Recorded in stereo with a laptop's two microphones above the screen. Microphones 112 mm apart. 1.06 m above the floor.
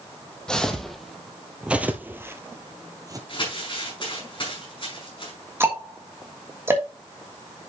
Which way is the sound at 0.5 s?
5° left (ahead or behind).